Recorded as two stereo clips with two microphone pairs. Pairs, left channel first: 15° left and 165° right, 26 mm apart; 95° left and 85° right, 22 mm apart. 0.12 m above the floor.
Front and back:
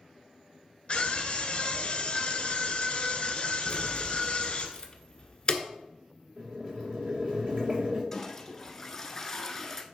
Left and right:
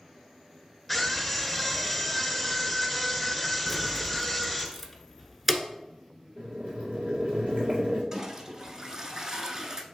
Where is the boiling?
120° right, 2.5 m.